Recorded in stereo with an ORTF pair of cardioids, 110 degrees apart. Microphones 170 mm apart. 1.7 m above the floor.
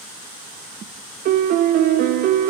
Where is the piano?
60° right, 0.5 m.